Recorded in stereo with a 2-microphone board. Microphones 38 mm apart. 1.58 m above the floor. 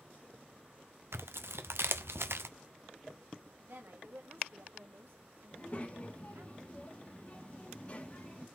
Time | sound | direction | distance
1.1 | tearing paper | 85° right | 0.7 m
3.6 | a woman speaking | 70° right (ahead or behind) | 1.7 m
5.5 | a child speaking | 35° left (ahead or behind) | 1.5 m